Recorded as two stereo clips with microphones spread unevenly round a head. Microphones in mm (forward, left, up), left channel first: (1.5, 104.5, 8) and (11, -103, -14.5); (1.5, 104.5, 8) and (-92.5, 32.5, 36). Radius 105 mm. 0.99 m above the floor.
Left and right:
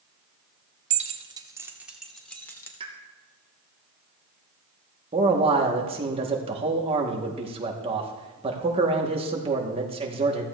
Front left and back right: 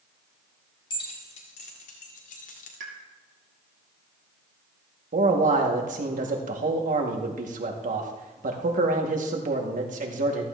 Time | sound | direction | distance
0.9 | keys jangling | 30° right | 1.4 m
2.8 | a pop | 150° right | 2.5 m
5.1 | a man speaking | 150° right | 2 m